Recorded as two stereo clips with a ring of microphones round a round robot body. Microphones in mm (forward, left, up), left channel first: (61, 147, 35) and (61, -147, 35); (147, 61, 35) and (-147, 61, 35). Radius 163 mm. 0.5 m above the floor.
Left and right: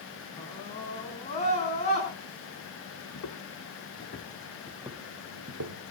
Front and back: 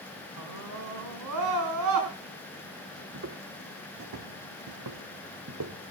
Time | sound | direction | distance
0.4 | a scream | 165° left | 4.5 m
3.1 | footsteps | 130° left | 2 m